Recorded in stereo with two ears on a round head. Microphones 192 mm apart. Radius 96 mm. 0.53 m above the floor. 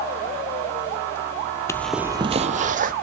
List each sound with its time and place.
1.7 s footsteps: 15° left (ahead or behind), 0.5 m; by 2.9 s 40° right (ahead or behind), 1.0 m